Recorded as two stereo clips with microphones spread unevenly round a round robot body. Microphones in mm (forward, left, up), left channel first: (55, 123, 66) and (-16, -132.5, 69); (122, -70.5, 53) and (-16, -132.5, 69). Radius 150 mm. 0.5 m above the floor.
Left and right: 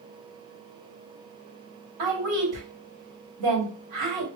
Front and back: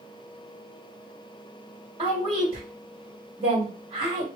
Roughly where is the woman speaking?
Right.